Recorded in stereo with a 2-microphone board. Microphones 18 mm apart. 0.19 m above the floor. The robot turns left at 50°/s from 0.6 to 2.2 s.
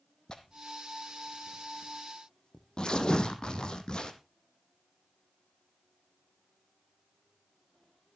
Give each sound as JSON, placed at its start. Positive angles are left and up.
{"t": 0.3, "sound": "tearing paper", "side_deg": 50, "distance_m": 1.3}